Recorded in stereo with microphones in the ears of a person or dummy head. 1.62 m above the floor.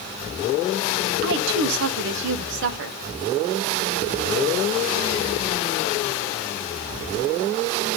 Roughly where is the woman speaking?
Right.